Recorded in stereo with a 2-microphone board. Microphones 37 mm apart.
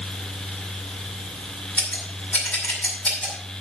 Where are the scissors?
45° left (ahead or behind), 6 m.